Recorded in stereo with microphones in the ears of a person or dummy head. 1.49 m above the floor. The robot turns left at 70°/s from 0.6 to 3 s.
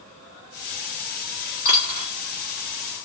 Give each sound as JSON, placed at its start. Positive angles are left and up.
{"t": 1.6, "sound": "a dropped coin", "side_deg": 45, "distance_m": 1.1}